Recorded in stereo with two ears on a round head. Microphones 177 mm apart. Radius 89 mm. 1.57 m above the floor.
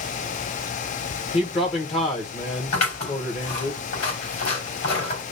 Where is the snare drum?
No snare drum in this recording.